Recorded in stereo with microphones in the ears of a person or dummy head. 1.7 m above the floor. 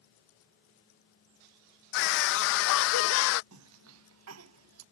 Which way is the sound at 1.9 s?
55° left (ahead or behind).